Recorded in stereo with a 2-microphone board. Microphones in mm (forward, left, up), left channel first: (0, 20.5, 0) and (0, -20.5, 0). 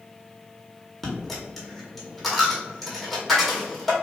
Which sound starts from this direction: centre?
A dropped coin, at 1.0 s.